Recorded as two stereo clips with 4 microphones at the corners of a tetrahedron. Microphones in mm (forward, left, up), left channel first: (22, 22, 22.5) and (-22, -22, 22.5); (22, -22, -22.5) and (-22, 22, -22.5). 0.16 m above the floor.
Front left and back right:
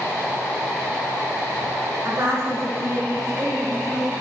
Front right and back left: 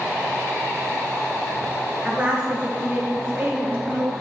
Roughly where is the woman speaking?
Behind.